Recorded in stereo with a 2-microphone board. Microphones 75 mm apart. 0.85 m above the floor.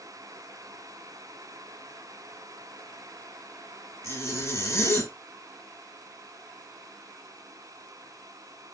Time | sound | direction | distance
4.0 | a zipper | 40° left (ahead or behind) | 0.8 m